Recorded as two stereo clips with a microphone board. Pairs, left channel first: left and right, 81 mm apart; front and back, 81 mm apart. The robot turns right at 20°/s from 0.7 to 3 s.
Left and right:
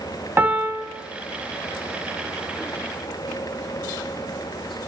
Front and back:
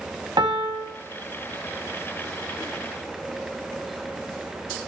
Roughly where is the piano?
Behind right.